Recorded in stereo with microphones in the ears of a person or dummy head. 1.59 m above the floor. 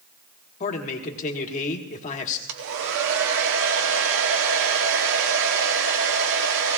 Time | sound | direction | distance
0.6 | a man speaking | 45° left (ahead or behind) | 1.5 m
2.5 | a hair dryer | 80° right | 1.1 m